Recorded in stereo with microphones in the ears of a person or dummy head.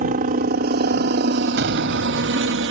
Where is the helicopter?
45° right (ahead or behind); by 2.7 s 65° right (ahead or behind).